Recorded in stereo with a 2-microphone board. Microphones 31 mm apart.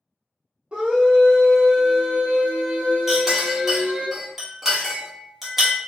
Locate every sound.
0.7 s a scream: 35° right (ahead or behind), 0.7 m; by 4.1 s 55° right (ahead or behind), 1.5 m
3.1 s a clink: 10° right (ahead or behind), 1.1 m